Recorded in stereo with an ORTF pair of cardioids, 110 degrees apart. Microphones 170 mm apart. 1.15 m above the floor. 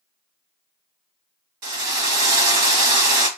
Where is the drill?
70° right, 1.2 m.